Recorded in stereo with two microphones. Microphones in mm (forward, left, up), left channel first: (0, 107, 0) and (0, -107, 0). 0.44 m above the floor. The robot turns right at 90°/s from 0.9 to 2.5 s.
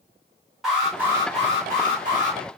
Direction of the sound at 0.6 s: 175° right.